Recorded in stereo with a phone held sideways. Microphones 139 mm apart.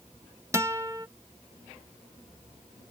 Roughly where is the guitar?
Right.